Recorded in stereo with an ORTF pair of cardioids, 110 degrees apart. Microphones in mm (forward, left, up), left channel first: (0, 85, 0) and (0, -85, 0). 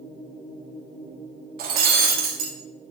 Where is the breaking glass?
65° right, 2 m.